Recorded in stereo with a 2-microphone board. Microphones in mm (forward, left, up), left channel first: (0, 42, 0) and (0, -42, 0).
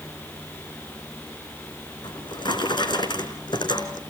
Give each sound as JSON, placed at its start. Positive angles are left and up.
{"t": 2.0, "sound": "a drawer", "side_deg": 60, "distance_m": 3.5}